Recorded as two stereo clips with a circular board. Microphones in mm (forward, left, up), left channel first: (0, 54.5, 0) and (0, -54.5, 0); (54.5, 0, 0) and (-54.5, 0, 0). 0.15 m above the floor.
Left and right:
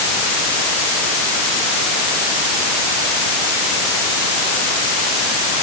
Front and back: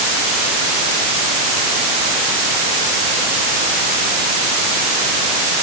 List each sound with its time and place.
Only background noise.